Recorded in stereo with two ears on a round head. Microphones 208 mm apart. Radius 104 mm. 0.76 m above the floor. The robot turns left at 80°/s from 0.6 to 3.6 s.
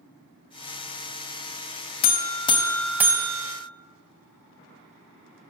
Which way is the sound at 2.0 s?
65° left.